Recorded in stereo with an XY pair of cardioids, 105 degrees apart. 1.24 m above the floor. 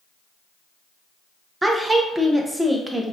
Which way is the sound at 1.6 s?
15° right.